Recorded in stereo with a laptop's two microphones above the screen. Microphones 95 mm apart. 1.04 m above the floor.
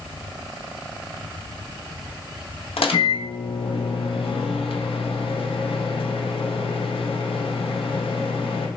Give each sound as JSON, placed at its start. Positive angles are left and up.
{"t": 2.8, "sound": "a microwave", "side_deg": 75, "distance_m": 0.7}